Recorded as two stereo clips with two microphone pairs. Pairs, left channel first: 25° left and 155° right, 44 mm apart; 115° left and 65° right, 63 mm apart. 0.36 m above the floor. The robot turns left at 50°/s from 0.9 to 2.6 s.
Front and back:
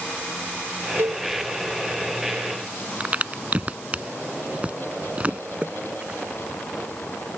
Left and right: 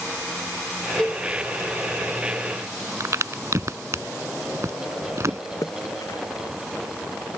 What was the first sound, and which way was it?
A cowbell, 175° right.